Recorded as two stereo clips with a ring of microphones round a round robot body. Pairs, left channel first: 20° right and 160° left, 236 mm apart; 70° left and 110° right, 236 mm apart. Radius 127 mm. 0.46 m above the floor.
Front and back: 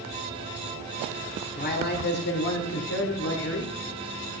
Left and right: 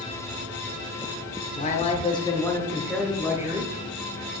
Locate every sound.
1.6 s a man speaking: 20° left, 1.4 m; by 3.7 s 40° right, 1.5 m